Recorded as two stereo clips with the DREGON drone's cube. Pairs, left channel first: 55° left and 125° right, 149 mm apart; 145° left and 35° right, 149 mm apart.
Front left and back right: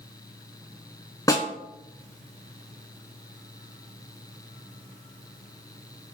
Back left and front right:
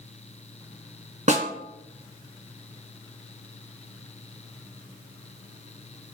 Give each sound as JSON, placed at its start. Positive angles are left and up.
{"t": 1.3, "sound": "a snare drum", "azimuth_deg": -10, "distance_m": 2.5}